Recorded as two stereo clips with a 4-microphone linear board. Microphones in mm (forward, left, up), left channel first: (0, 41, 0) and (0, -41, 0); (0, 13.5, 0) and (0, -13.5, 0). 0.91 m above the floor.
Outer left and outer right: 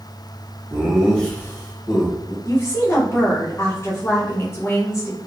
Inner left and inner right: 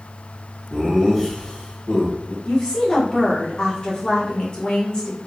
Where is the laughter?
20° right (ahead or behind), 0.6 m; by 2.4 s 60° left (ahead or behind), 0.9 m.